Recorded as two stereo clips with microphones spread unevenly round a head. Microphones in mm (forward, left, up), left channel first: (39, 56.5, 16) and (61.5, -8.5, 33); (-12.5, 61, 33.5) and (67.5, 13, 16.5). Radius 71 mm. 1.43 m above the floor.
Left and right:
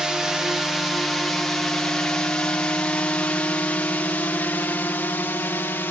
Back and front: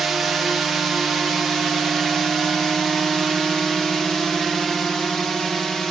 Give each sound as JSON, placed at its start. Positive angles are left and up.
{"t": 0.0, "sound": "a drone", "azimuth_deg": 30}